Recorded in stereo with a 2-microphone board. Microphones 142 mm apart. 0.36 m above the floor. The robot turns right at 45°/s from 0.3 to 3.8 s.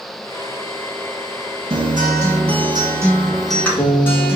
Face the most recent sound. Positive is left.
turn(degrees=15)